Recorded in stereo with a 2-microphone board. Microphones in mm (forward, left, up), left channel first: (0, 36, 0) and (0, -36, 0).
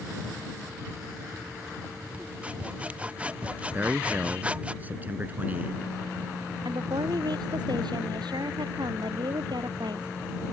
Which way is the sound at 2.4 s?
20° right (ahead or behind).